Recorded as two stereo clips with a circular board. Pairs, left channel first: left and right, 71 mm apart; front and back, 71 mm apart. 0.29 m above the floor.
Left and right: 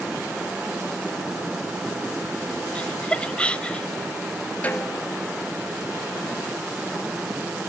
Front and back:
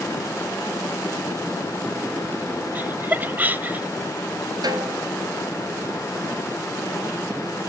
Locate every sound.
2.8 s laughter: 150° left, 1.0 m
4.6 s a snare drum: 160° left, 1.8 m